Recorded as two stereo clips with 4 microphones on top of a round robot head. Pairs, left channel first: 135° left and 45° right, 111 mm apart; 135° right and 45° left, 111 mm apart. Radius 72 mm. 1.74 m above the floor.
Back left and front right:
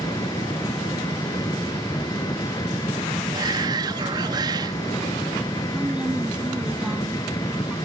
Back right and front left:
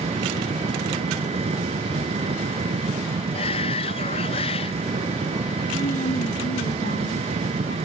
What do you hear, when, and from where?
0.0 s an engine running: 75° left
3.3 s a shout: 95° right
5.7 s a woman speaking: 125° right